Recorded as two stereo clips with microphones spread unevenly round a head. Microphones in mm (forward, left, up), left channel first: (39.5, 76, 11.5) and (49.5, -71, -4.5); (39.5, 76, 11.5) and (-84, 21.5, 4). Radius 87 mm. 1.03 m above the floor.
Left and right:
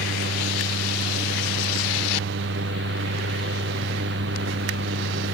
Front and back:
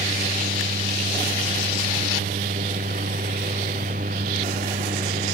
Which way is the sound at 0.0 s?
105° right.